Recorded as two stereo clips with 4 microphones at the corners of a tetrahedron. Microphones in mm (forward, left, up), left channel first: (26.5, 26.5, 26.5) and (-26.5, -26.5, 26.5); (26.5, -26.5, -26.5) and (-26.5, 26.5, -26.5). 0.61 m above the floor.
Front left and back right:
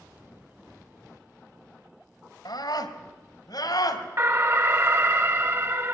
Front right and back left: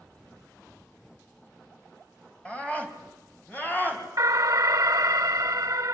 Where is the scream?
30° left, 4.5 m; by 4.0 s 15° left, 5.5 m.